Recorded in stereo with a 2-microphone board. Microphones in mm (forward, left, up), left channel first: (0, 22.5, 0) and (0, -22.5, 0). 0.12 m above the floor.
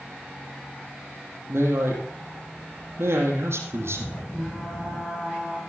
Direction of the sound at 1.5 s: 70° right (ahead or behind).